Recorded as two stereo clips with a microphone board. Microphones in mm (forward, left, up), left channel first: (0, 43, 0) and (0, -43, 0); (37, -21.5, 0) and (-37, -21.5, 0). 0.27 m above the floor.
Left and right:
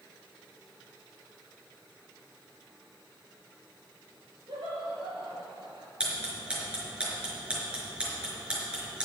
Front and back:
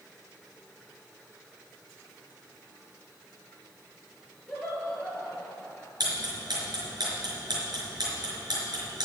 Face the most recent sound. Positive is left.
turn(degrees=-165)